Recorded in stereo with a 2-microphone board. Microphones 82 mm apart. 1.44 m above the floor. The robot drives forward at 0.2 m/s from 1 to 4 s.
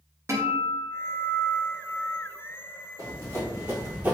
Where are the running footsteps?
40° right (ahead or behind), 2.0 m; by 4.1 s 20° right (ahead or behind), 1.6 m.